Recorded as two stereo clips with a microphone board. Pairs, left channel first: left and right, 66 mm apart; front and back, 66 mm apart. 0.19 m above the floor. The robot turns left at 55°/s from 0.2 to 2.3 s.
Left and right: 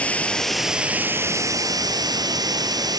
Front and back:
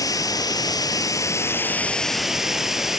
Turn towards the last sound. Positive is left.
turn(degrees=-95)